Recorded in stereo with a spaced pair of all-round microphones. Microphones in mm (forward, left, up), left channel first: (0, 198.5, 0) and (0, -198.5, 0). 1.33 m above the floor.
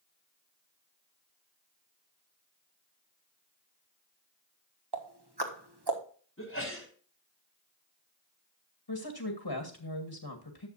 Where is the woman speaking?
75° left (ahead or behind), 1.9 m.